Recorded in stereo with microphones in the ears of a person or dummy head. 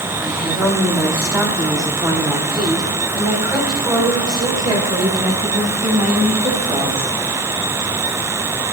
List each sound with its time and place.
0.2 s a woman speaking: centre (ahead or behind), 2.5 m; by 7.1 s 30° right (ahead or behind), 6 m